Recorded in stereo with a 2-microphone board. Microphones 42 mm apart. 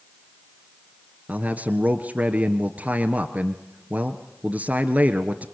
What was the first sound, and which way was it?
A man speaking, 40° right (ahead or behind).